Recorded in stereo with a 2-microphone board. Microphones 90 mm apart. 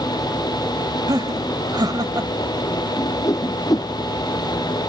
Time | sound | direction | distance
1.1 | laughter | 50° right (ahead or behind) | ?
3.0 | a whoosh | 40° left (ahead or behind) | ?